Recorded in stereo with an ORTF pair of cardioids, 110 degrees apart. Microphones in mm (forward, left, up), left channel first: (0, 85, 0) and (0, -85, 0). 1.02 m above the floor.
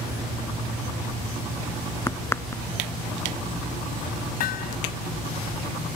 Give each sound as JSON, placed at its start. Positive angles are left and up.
{"t": 2.1, "sound": "a crack", "azimuth_deg": 15}
{"t": 4.4, "sound": "hammering", "azimuth_deg": 65}